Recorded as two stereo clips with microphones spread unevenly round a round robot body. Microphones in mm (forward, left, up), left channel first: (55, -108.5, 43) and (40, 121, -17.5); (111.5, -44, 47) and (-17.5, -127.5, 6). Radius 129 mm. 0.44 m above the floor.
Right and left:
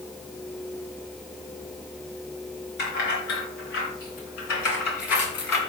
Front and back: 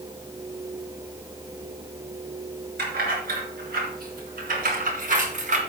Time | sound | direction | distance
2.8 | keys jangling | 140° right | 4.5 m